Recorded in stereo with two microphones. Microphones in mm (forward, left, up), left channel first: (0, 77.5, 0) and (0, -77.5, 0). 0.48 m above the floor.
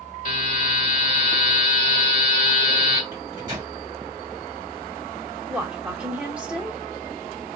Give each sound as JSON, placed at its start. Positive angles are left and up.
{"t": 0.2, "sound": "a buzzer", "side_deg": 55, "distance_m": 1.2}
{"t": 3.1, "sound": "a microwave", "side_deg": -25, "distance_m": 1.8}
{"t": 5.5, "sound": "a woman speaking", "side_deg": -5, "distance_m": 0.8}